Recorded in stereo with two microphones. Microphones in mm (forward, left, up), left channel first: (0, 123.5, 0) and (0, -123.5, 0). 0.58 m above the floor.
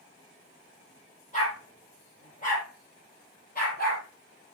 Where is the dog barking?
30° left (ahead or behind), 8 m; by 4.0 s 40° left (ahead or behind), 6.5 m.